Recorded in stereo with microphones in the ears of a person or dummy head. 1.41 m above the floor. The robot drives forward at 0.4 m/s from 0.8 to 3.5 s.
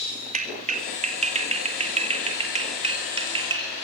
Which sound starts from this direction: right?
A clap, at 0.3 s.